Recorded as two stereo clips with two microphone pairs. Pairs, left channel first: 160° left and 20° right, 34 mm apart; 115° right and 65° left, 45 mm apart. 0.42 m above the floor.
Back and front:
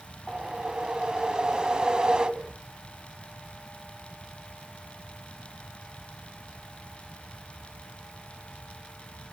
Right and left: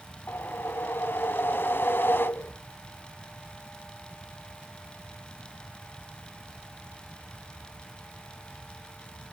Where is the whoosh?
85° right, 0.7 m.